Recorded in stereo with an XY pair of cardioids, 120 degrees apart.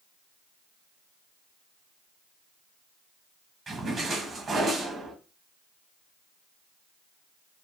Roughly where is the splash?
Ahead right.